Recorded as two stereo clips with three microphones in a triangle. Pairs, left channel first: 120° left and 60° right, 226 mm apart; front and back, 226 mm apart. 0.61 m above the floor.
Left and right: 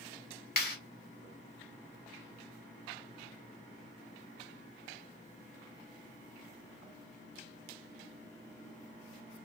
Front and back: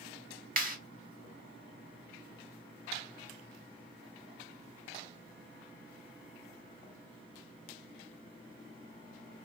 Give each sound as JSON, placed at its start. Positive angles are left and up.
{"t": 0.6, "sound": "a clap", "azimuth_deg": 145, "distance_m": 1.1}